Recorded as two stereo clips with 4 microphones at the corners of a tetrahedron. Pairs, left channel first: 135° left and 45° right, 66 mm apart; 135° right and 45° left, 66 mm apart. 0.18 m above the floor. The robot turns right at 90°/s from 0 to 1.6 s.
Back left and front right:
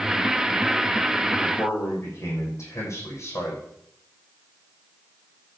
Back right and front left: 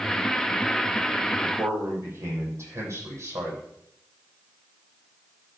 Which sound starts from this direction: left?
A man speaking, at 1.4 s.